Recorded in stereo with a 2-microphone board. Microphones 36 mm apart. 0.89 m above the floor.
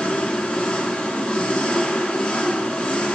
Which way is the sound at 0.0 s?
25° left (ahead or behind).